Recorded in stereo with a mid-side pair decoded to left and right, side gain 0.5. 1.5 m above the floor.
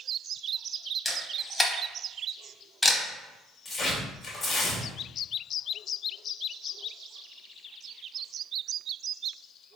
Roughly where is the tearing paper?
Ahead left.